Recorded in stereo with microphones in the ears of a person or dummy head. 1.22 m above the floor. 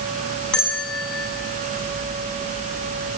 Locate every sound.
0.5 s a bell: centre (ahead or behind), 8.5 m